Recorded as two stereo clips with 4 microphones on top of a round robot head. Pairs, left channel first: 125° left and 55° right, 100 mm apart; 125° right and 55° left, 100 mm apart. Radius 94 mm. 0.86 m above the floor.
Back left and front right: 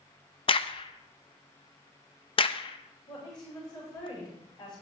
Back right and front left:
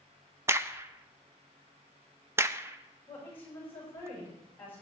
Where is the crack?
115° left, 0.7 m.